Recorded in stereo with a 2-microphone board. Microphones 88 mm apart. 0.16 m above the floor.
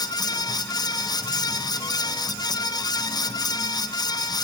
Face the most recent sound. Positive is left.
No sound to turn to.